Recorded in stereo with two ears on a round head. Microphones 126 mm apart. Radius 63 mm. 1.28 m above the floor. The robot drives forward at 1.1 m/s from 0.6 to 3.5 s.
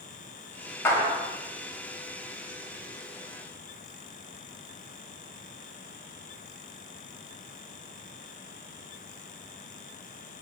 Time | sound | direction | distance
0.8 | a clap | 20° left (ahead or behind) | 2.5 m